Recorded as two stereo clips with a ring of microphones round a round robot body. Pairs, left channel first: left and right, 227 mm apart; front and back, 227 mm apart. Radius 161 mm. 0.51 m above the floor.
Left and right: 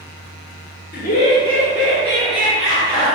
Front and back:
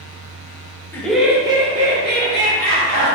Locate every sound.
0.9 s laughter: 80° left, 1.1 m; by 3.1 s 140° right, 2 m